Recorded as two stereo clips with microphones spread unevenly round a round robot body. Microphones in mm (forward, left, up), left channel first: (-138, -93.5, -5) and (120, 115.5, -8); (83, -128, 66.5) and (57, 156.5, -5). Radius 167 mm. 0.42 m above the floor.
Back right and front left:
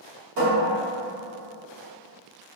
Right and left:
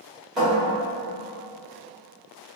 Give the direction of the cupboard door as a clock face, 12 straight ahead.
11 o'clock.